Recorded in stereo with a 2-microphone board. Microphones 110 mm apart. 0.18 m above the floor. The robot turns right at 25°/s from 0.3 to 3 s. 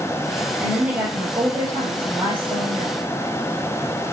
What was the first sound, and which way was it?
A woman speaking, 175° right.